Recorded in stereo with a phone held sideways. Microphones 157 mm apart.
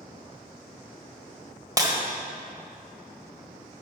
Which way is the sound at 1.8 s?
25° right (ahead or behind).